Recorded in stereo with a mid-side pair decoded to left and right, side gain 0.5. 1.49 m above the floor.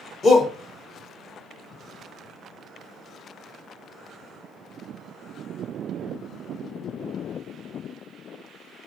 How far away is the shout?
About 0.7 m.